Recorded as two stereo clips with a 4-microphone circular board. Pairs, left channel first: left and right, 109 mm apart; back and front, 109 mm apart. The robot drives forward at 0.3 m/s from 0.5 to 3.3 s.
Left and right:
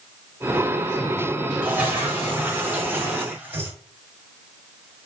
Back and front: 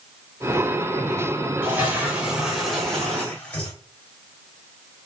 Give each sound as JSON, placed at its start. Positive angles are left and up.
{"t": 1.6, "sound": "a toilet flushing", "azimuth_deg": -40, "distance_m": 0.9}